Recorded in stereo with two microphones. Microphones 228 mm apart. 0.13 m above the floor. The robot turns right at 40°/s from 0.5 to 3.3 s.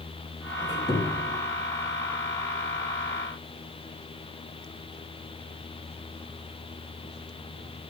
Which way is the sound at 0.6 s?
20° left (ahead or behind).